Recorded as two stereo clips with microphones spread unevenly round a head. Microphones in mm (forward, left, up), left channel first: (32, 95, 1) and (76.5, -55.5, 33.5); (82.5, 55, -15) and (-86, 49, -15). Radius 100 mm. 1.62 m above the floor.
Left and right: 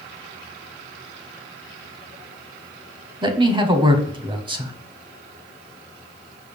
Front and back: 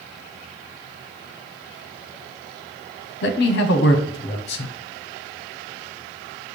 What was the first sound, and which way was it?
A man speaking, 20° right.